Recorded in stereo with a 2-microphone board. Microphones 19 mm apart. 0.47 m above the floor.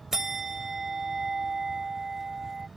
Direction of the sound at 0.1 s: 25° right (ahead or behind).